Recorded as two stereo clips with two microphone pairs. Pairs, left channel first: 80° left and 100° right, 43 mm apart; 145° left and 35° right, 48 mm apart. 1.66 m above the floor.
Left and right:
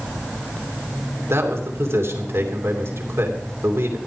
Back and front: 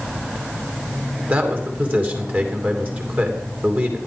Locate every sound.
1.3 s a man speaking: 85° right, 3 m